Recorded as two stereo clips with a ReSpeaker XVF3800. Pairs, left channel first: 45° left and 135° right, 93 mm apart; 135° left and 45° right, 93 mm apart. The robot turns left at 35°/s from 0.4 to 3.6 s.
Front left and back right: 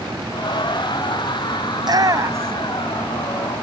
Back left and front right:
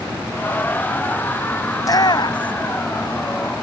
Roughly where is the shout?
Behind.